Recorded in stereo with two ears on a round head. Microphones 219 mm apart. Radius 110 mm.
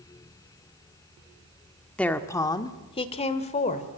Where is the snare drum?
I don't hear a snare drum.